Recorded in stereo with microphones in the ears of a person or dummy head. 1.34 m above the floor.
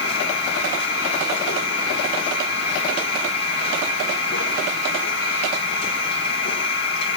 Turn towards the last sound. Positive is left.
turn(degrees=50)  # may be behind; listen again after turning